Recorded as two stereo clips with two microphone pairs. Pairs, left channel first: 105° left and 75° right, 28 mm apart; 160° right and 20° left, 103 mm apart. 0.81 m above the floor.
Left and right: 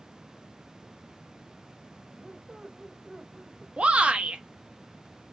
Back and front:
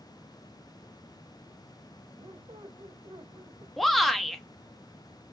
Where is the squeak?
10° right, 1.0 m.